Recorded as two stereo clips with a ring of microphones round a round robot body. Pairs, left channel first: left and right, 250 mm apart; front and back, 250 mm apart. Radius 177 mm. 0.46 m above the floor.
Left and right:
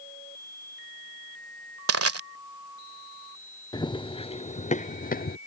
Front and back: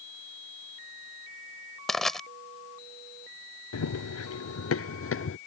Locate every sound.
1.9 s crushing: 90° right
3.7 s running footsteps: 15° left; by 5.4 s 35° left